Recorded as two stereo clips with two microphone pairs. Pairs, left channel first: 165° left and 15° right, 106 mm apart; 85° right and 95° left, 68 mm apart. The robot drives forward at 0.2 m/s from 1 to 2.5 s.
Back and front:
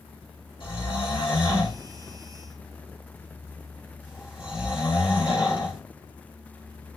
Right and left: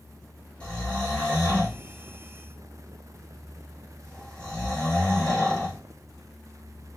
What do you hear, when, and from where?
0.6 s snoring: 160° right, 3.5 m